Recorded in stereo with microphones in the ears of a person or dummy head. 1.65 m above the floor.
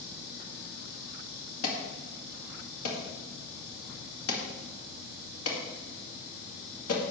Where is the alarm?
75° left (ahead or behind), 2.0 m.